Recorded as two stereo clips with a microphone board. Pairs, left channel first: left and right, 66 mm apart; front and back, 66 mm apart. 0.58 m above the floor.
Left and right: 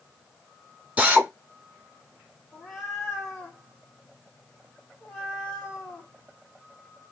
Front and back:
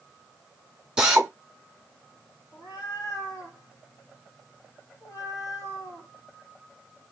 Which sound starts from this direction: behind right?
A drill, at 1.0 s.